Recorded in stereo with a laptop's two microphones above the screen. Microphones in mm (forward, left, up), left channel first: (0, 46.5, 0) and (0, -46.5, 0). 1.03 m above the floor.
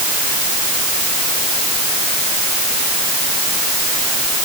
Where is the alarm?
No alarm in this recording.